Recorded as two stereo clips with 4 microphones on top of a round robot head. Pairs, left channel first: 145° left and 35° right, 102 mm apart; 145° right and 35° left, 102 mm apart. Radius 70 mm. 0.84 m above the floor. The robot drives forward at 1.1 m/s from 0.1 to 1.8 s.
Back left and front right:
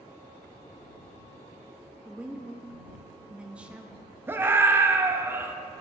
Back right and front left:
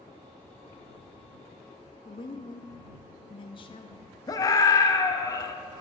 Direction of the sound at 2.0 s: 115° right.